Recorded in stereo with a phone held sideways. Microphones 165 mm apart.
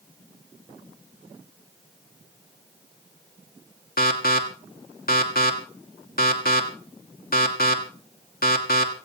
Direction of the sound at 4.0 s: 60° left (ahead or behind).